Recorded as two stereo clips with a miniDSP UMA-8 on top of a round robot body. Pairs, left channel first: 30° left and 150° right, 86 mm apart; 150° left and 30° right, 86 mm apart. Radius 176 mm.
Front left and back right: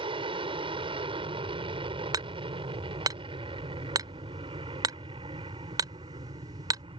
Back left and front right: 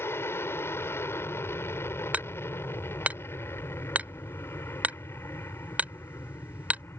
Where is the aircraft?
145° right.